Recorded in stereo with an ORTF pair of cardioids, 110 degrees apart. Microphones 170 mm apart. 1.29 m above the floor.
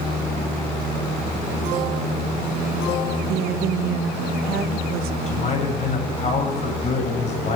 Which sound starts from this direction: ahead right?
A woman speaking, at 3.3 s.